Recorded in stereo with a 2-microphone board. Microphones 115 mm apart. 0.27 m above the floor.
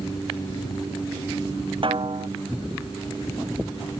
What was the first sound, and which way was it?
A snare drum, 50° right (ahead or behind).